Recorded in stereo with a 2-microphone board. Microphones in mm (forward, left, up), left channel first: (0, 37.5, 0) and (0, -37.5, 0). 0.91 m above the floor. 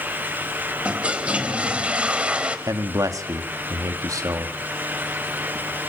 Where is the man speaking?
55° right (ahead or behind), 1.6 m.